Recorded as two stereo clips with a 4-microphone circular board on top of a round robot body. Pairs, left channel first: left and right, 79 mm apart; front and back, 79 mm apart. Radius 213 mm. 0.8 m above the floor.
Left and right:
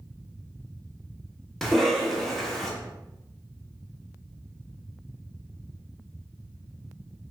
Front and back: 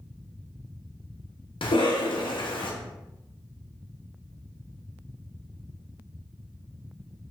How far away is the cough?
About 1.2 m.